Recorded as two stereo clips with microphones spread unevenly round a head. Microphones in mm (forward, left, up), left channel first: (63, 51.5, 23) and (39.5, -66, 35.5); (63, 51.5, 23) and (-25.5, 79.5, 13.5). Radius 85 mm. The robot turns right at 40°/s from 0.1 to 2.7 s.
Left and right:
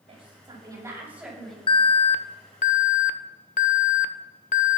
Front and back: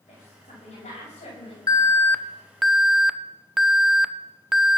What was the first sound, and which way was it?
A woman speaking, 65° right.